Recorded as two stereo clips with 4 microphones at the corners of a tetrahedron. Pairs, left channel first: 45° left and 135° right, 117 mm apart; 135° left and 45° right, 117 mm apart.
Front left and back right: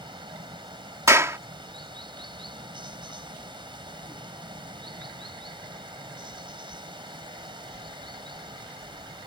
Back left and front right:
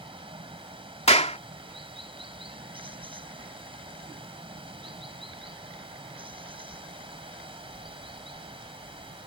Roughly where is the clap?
Behind.